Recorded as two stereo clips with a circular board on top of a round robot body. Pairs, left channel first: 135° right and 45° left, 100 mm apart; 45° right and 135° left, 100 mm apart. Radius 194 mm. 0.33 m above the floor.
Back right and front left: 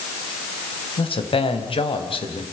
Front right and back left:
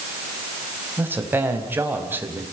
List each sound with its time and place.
1.0 s a man speaking: 155° right, 4 m